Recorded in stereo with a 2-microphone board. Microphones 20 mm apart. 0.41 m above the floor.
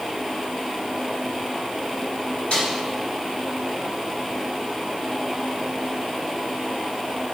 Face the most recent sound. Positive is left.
turn(degrees=85)